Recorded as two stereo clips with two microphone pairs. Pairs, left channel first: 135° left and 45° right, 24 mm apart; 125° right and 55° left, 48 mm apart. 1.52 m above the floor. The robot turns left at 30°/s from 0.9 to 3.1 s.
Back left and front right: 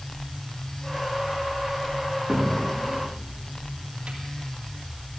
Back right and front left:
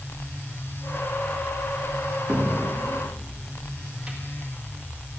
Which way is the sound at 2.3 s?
15° left.